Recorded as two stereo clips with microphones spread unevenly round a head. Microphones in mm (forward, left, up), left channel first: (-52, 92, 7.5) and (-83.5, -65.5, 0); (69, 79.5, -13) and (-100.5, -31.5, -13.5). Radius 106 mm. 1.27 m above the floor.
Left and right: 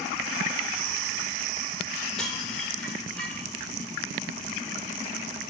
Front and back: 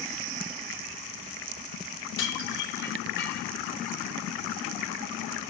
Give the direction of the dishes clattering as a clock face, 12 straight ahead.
12 o'clock.